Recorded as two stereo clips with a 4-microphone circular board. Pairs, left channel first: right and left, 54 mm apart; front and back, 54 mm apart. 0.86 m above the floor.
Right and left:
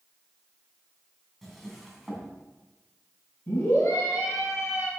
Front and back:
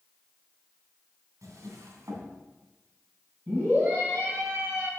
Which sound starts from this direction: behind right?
A scream, at 3.5 s.